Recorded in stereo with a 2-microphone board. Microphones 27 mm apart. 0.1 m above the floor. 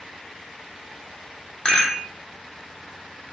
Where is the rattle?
35° left (ahead or behind), 0.9 m.